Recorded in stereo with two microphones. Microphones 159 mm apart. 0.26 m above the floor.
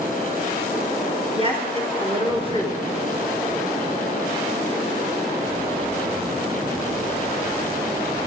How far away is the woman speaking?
About 4 m.